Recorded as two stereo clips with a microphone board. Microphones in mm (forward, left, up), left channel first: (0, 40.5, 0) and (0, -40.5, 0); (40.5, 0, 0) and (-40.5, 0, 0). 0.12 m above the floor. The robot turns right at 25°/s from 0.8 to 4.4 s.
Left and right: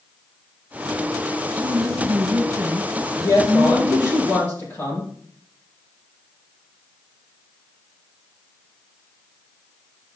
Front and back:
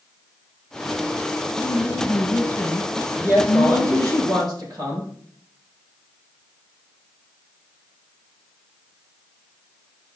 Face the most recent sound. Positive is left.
turn(degrees=150)